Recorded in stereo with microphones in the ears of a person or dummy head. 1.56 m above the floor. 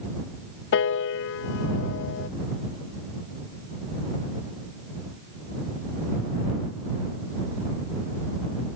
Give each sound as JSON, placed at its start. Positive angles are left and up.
{"t": 0.7, "sound": "a piano", "side_deg": 65}